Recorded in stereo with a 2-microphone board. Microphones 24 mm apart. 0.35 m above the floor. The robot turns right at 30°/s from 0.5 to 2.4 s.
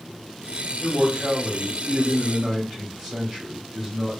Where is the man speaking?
90° right, 1.5 m; by 4.2 s 40° right, 1.5 m.